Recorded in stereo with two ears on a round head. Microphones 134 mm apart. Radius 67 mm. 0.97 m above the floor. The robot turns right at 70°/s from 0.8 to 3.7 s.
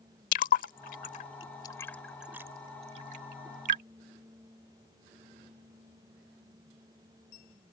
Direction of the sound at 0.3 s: 65° left (ahead or behind).